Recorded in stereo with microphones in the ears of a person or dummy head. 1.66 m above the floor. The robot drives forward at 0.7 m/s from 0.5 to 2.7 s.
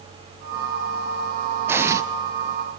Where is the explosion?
10° right (ahead or behind), 0.9 m; by 2.0 s 15° right (ahead or behind), 0.7 m.